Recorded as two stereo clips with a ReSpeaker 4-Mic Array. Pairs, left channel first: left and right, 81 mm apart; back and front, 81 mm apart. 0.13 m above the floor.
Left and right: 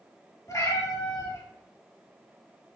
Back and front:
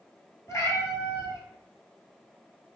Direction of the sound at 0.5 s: 130° left.